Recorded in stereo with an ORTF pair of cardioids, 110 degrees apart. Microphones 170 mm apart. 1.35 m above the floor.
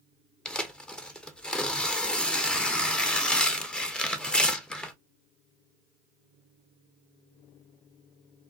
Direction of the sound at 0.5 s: 5° left.